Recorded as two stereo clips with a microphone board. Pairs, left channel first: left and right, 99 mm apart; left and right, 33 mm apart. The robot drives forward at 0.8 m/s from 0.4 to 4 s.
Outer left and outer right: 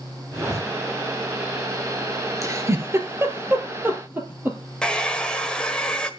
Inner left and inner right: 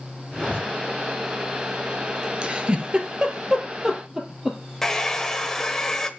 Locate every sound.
0.3 s a zipper: 40° right (ahead or behind), 6 m
2.4 s a giggle: 30° right (ahead or behind), 1.8 m; by 4.6 s 20° right (ahead or behind), 3 m
4.8 s a hair dryer: 10° left (ahead or behind), 1.4 m